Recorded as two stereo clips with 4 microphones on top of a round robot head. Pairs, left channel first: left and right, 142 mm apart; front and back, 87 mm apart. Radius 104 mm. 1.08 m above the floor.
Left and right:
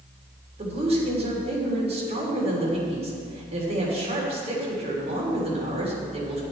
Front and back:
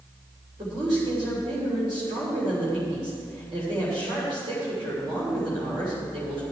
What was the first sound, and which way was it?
A woman speaking, 135° right.